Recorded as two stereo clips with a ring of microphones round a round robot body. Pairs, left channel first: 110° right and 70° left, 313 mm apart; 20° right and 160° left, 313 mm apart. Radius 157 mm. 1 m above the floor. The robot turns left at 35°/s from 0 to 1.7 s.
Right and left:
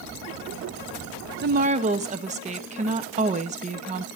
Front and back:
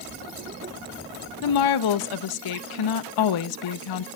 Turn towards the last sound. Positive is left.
turn(degrees=0)